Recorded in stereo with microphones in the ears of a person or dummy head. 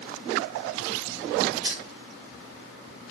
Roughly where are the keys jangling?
Right.